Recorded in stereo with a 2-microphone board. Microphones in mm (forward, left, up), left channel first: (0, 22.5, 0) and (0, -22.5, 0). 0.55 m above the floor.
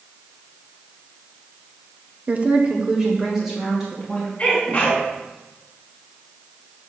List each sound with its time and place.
2.3 s a woman speaking: 35° right (ahead or behind), 0.8 m; by 4.3 s 5° right (ahead or behind), 3 m
4.4 s a sneeze: 25° left (ahead or behind), 4 m